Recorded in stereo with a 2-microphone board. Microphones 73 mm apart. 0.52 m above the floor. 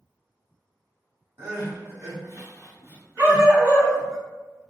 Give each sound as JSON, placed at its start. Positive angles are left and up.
{"t": 1.4, "sound": "crying", "side_deg": -40, "distance_m": 1.2}
{"t": 3.2, "sound": "a dog barking", "side_deg": -25, "distance_m": 1.7}